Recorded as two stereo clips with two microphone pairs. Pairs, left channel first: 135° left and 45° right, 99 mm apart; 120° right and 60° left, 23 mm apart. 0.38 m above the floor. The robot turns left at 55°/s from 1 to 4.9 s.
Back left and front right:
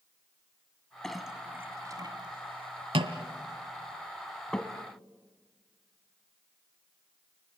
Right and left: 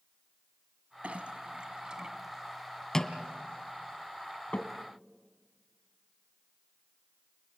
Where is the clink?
50° left, 1.6 m; by 4.7 s 150° right, 1.6 m.